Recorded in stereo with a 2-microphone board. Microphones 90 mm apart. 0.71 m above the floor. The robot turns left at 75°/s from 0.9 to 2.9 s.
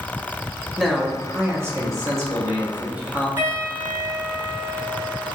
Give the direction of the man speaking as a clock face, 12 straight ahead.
12 o'clock.